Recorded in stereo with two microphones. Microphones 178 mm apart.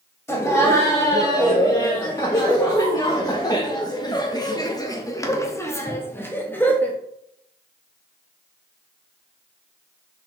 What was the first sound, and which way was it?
Laughter, 10° left (ahead or behind).